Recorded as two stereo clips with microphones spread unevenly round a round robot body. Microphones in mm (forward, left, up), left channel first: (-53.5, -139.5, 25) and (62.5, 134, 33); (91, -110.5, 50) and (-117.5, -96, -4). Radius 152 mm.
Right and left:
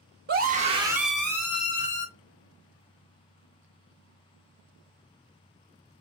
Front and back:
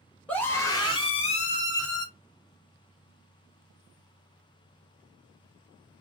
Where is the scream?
100° left, 1.3 m; by 2.1 s 65° right, 1.6 m.